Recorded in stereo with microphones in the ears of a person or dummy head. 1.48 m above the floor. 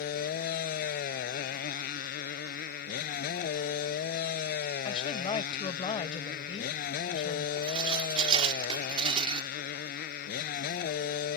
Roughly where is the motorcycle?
Left.